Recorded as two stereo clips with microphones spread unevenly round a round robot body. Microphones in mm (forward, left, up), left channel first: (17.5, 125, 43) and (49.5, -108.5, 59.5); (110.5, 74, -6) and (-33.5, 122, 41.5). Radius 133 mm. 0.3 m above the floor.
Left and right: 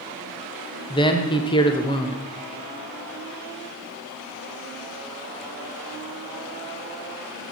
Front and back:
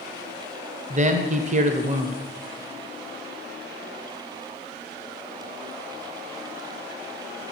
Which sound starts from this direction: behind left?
A man speaking, at 0.9 s.